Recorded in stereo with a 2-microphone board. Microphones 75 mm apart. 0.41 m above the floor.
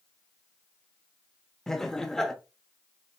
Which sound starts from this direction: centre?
Laughter, at 1.7 s.